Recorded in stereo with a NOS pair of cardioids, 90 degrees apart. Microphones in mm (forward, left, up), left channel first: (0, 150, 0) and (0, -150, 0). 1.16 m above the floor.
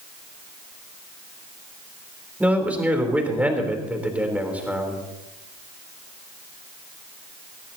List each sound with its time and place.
2.4 s a man speaking: 5° right, 3.5 m